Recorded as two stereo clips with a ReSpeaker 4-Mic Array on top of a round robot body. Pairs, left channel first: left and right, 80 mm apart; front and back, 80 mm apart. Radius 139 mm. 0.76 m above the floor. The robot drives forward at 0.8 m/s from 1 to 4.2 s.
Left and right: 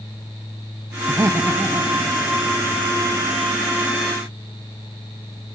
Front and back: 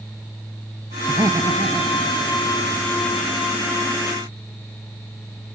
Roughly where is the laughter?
Behind right.